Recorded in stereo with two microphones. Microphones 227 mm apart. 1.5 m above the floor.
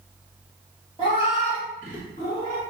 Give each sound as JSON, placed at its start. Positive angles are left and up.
{"t": 1.0, "sound": "a cat meowing", "side_deg": 25, "distance_m": 1.4}